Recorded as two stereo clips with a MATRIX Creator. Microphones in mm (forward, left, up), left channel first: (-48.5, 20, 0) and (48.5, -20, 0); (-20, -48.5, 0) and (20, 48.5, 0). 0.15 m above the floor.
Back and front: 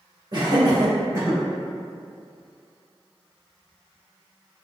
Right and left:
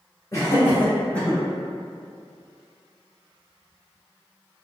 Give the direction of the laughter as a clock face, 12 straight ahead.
2 o'clock.